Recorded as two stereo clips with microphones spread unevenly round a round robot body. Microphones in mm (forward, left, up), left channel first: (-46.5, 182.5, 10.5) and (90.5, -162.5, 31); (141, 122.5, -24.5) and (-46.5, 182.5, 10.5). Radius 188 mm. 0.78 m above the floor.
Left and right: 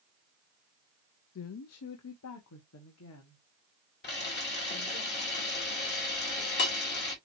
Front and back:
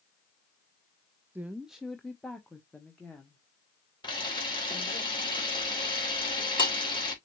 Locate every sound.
1.4 s a woman speaking: 75° left, 0.5 m; by 5.0 s 60° left, 2.5 m
4.0 s a camera shutter: 50° left, 3 m